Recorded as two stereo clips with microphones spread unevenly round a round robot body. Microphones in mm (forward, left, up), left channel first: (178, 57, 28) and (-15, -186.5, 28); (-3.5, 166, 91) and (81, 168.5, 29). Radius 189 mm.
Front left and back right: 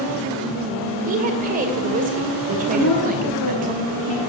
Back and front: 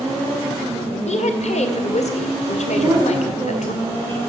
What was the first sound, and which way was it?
A woman speaking, 170° left.